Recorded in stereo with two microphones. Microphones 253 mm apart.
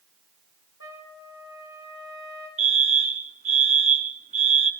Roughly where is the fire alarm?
Right.